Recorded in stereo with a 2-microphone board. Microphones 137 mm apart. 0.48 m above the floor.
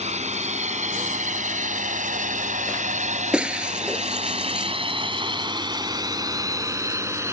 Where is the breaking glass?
5° right (ahead or behind).